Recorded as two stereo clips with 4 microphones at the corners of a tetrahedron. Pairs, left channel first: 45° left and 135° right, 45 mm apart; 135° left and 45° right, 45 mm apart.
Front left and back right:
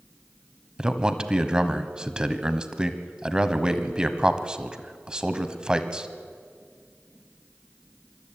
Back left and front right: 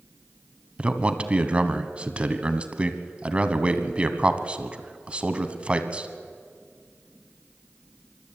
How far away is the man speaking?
About 1.2 m.